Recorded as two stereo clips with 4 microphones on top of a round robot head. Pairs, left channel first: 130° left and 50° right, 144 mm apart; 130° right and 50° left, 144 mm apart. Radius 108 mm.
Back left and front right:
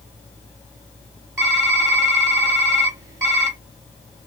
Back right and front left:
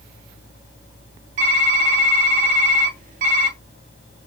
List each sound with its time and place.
1.4 s typing on a keyboard: 20° left, 2 m